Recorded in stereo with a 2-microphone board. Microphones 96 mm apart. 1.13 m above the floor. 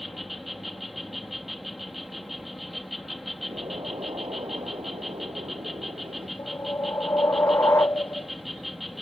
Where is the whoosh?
25° left (ahead or behind).